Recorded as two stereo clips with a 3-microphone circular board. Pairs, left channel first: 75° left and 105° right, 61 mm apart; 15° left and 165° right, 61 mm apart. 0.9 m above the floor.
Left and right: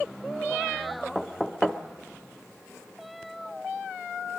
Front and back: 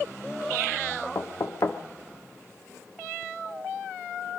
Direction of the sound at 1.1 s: 5° right.